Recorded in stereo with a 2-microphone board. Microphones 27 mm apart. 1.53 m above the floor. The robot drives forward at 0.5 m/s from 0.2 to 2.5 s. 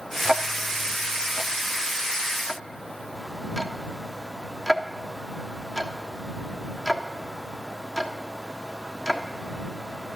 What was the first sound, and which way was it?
Ticking, 15° right (ahead or behind).